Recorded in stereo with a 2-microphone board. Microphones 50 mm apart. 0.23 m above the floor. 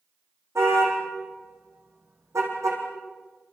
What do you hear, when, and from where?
0.6 s a car horn: 70° right (ahead or behind), 9.5 m; by 2.8 s 85° right, 7 m